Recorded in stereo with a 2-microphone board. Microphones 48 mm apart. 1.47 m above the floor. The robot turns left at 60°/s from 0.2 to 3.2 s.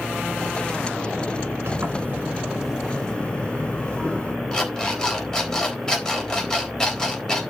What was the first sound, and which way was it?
A sliding door, 110° right.